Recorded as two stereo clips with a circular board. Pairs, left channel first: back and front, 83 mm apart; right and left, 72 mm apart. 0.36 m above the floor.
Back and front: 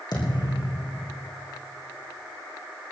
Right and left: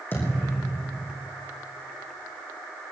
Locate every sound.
0.1 s a thud: 150° right, 4 m